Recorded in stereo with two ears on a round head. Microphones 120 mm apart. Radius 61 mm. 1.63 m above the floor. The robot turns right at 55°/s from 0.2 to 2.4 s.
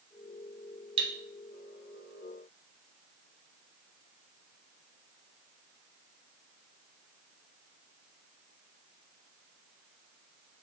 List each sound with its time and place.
1.0 s cutlery clinking: 45° right (ahead or behind), 1.4 m